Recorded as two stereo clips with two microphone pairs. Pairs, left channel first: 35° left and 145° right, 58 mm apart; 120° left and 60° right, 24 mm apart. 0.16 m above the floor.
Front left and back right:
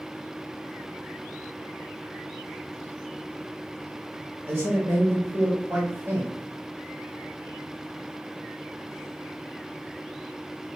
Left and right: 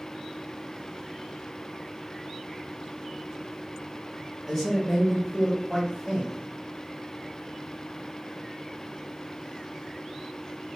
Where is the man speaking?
165° right, 1.7 m.